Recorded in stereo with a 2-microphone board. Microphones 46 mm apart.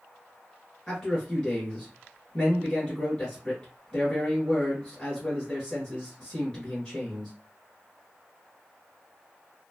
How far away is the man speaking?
About 1.7 m.